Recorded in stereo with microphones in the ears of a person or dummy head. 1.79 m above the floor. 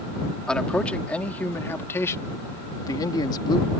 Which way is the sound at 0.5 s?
5° left (ahead or behind).